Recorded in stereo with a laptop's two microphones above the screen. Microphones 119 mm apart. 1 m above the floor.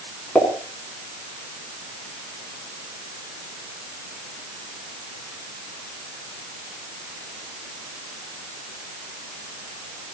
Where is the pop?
5° left (ahead or behind), 7.5 m.